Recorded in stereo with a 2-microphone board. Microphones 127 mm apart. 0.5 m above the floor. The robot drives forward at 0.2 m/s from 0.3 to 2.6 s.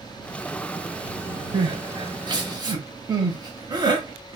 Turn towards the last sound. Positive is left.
turn(degrees=-30)  # may be behind; listen again after turning